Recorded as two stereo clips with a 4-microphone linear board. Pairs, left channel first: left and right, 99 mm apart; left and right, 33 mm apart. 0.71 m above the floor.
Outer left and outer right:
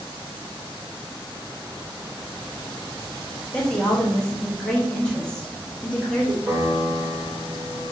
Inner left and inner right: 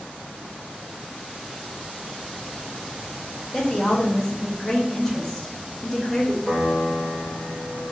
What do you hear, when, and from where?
3.5 s a woman speaking: 10° left (ahead or behind), 1.0 m
6.5 s a piano: 30° right (ahead or behind), 1.0 m